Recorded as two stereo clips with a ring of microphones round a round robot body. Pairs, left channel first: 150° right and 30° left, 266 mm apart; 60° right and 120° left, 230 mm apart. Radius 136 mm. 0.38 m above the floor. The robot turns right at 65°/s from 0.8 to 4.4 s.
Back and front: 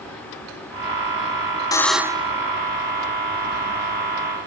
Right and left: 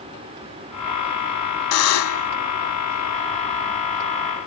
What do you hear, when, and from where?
1.7 s a buzzer: 75° right; by 2.3 s 35° right